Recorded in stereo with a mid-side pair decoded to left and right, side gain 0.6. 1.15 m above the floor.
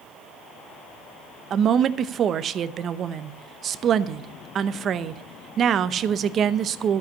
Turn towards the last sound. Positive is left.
turn(degrees=-45)